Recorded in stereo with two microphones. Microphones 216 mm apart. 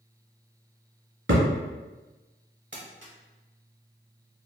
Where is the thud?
70° right (ahead or behind), 1.3 m.